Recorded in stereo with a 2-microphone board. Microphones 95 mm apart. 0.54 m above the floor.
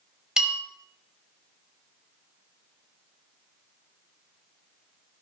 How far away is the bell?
About 1.1 m.